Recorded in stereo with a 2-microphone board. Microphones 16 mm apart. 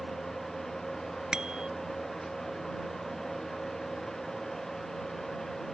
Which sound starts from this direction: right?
A bicycle bell, at 1.3 s.